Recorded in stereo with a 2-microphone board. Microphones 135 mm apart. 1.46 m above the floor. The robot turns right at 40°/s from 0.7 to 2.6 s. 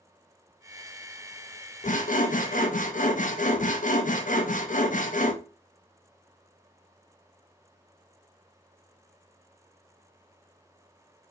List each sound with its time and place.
1.8 s sawing: 70° left, 0.6 m; by 5.3 s 100° left, 0.6 m